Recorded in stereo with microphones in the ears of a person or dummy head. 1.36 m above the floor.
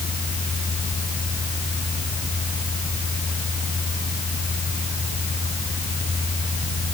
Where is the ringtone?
No ringtone in this recording.